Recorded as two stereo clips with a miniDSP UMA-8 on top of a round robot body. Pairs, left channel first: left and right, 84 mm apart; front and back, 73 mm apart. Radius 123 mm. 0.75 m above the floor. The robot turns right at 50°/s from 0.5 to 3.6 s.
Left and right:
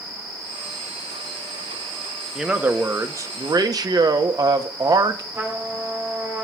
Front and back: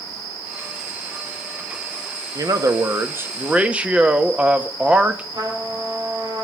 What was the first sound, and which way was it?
A man speaking, 175° right.